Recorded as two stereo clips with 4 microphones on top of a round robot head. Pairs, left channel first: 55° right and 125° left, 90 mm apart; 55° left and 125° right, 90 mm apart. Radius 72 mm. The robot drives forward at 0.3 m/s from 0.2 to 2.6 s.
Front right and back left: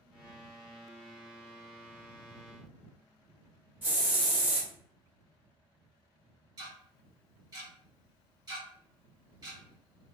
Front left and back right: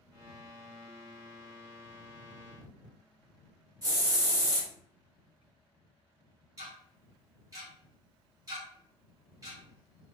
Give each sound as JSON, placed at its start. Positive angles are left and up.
{"t": 3.8, "sound": "a hiss", "azimuth_deg": -165, "distance_m": 1.2}
{"t": 6.6, "sound": "ticking", "azimuth_deg": 175, "distance_m": 1.2}